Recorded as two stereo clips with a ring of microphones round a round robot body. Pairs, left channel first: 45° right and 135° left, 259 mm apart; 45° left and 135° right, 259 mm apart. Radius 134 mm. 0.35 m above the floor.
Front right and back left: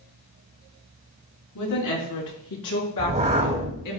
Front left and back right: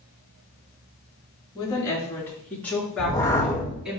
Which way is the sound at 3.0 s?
110° left.